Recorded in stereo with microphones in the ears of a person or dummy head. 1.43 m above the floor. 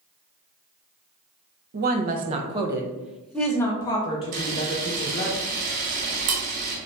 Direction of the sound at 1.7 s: 55° right (ahead or behind).